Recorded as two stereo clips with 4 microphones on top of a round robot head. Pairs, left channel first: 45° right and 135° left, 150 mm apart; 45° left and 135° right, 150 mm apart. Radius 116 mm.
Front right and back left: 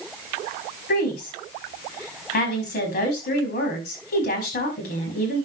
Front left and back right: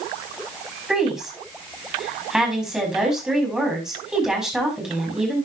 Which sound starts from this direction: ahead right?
A woman speaking, at 0.9 s.